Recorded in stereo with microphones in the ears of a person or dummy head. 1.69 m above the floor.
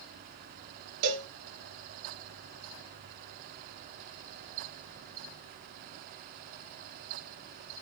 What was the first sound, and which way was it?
A cowbell, 60° right (ahead or behind).